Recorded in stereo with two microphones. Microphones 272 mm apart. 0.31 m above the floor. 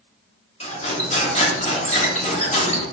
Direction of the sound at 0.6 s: 25° left (ahead or behind).